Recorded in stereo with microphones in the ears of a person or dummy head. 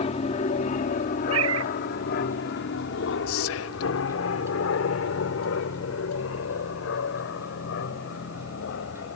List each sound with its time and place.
0.0 s an aircraft: 40° left (ahead or behind); by 9.2 s 65° left (ahead or behind)
1.3 s a cat meowing: 85° right
3.3 s whispering: 85° left